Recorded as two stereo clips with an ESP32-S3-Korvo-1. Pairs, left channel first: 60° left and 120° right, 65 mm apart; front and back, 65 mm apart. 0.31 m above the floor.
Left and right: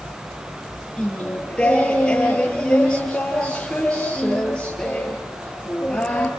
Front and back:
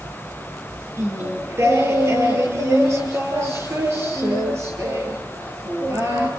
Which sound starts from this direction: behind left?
Singing, at 1.0 s.